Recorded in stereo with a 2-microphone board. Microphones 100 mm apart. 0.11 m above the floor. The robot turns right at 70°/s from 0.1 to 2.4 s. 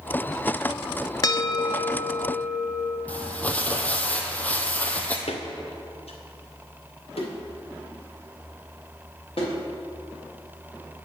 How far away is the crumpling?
About 0.9 m.